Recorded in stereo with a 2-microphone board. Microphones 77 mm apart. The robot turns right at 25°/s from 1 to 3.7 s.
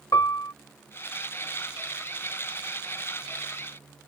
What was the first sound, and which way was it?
A piano, 55° left (ahead or behind).